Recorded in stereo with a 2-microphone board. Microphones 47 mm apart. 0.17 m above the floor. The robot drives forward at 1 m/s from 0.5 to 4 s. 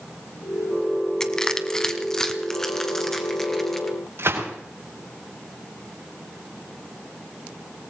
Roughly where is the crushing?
Centre.